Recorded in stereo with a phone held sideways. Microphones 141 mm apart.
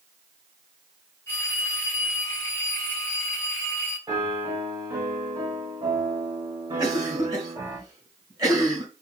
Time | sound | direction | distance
1.3 | a phone ringing | 15° left (ahead or behind) | 2 m
4.1 | a piano | 25° right (ahead or behind) | 2.0 m
6.8 | a cough | 30° right (ahead or behind) | 2 m